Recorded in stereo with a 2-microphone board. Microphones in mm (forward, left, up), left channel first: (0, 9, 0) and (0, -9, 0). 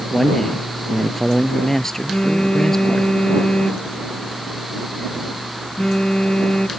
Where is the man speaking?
25° left (ahead or behind).